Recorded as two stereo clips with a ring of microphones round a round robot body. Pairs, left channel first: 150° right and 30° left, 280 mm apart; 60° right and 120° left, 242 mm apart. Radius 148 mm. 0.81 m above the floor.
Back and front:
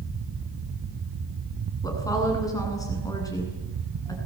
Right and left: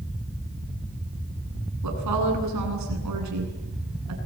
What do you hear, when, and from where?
1.8 s a woman speaking: 130° left, 9 m